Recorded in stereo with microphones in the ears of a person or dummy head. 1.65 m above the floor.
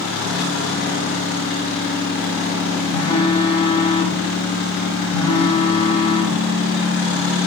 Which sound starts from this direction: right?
A phone buzzing, at 2.9 s.